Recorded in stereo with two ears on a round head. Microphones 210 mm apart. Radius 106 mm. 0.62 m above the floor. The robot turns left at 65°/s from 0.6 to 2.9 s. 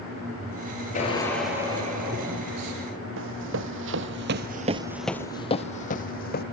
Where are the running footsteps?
60° right (ahead or behind), 1.8 m; by 6.4 s 40° left (ahead or behind), 1.8 m.